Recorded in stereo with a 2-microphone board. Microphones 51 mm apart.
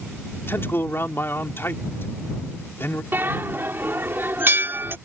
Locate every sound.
0.5 s a man speaking: 50° left (ahead or behind)
3.1 s a bell: 45° right (ahead or behind)